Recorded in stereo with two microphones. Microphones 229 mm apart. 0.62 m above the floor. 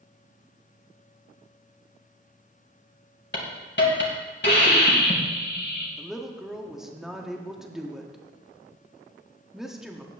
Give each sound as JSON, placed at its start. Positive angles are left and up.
{"t": 3.3, "sound": "a hiss", "side_deg": 50, "distance_m": 2.5}
{"t": 6.0, "sound": "a woman speaking", "side_deg": 0, "distance_m": 1.2}